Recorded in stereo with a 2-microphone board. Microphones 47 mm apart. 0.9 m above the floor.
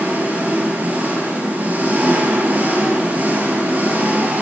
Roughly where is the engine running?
Right.